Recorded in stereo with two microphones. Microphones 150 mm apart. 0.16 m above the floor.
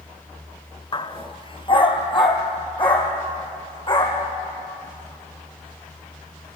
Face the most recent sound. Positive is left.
turn(degrees=35)  # may be behind; listen again after turning